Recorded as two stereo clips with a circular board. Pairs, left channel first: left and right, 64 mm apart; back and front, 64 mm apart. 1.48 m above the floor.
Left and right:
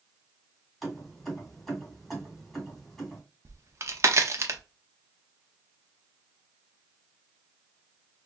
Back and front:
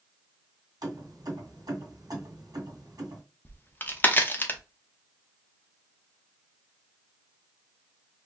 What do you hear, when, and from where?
0.8 s keys jangling: 5° left, 2 m
3.5 s a crack: 125° right, 0.6 m